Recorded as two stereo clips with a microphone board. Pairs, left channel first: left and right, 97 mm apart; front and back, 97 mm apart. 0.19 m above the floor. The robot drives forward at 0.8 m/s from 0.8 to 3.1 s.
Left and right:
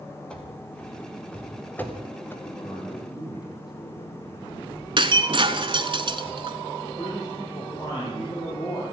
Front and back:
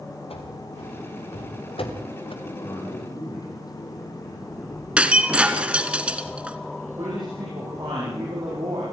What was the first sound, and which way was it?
Running footsteps, 10° left.